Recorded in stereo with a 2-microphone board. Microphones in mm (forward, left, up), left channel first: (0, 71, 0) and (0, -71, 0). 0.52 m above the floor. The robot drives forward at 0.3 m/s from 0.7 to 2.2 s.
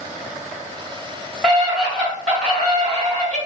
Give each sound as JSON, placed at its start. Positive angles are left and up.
{"t": 1.4, "sound": "a scream", "side_deg": 5, "distance_m": 1.3}